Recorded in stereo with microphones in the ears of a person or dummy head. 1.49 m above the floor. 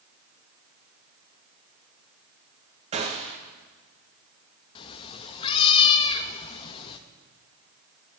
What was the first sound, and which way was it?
A gunshot, 30° right (ahead or behind).